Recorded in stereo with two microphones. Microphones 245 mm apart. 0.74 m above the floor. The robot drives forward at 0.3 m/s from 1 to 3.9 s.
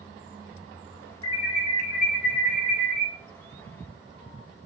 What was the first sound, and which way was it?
An alarm, 25° left (ahead or behind).